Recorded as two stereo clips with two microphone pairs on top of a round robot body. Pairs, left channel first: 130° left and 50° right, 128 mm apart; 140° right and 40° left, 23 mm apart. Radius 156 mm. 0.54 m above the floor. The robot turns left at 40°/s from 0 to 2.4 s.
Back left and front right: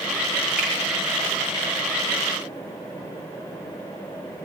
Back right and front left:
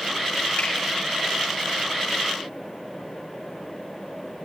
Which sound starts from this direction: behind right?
A finger snap, at 0.6 s.